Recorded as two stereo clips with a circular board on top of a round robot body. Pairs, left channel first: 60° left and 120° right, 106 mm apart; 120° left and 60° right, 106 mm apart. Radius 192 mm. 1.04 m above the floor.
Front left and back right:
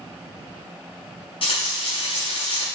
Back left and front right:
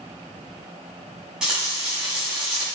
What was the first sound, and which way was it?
Frying, 25° left.